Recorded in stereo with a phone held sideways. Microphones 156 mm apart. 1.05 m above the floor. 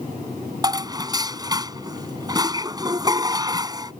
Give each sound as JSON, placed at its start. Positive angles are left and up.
{"t": 0.6, "sound": "dishes clattering", "side_deg": -25}